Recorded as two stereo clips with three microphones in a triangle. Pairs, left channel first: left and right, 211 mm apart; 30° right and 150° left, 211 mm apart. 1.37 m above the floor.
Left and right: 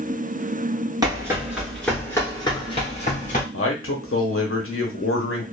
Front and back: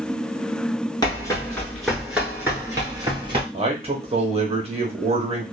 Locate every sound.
1.0 s running footsteps: 60° right, 1.4 m; by 3.4 s 100° left, 1.6 m
3.5 s a man speaking: 90° left, 0.9 m